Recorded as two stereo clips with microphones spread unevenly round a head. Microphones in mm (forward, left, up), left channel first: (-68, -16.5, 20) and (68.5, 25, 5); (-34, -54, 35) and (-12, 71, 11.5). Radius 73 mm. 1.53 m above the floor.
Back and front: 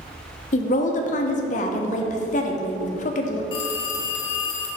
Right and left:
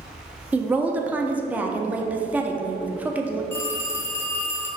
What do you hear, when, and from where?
0.5 s a woman speaking: 160° left, 0.8 m
3.5 s a phone ringing: 145° right, 1.0 m